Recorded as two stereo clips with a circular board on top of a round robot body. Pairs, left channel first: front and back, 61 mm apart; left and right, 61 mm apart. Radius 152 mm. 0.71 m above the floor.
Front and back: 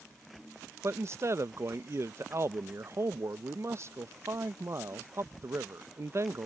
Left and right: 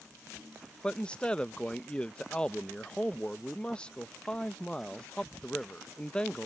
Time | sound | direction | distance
0.8 | a man speaking | 155° left | ?